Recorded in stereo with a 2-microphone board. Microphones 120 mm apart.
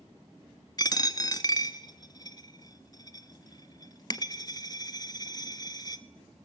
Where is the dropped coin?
35° left (ahead or behind), 0.8 m.